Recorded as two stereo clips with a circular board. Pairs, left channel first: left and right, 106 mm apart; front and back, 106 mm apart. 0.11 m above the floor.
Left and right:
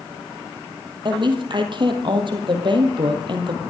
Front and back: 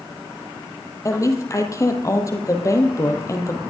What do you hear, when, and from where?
1.1 s a woman speaking: 55° right, 2.5 m